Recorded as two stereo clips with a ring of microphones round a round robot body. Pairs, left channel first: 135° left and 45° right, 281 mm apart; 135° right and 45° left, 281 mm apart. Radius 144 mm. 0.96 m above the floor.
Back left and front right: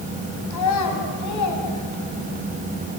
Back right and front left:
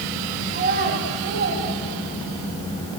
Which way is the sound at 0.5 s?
110° left.